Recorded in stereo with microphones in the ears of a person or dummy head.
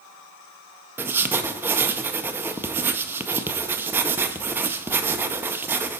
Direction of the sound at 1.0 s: 5° right (ahead or behind).